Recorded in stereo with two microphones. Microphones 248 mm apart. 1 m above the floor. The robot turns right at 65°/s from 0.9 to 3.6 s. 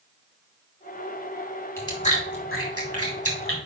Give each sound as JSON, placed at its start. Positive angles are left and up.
{"t": 1.8, "sound": "chewing", "side_deg": 10, "distance_m": 2.5}